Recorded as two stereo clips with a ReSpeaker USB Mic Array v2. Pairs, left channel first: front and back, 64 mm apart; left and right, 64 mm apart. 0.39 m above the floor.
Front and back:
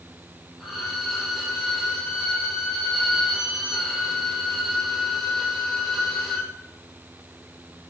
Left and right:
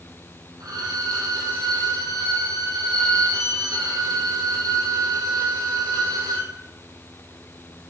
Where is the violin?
90° right, 2.0 m.